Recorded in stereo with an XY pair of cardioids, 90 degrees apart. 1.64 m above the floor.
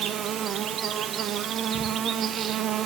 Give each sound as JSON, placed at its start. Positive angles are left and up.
{"t": 0.0, "sound": "an insect", "azimuth_deg": -70, "distance_m": 0.8}